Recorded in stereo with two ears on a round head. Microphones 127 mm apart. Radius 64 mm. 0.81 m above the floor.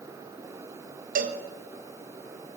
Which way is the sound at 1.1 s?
70° right (ahead or behind).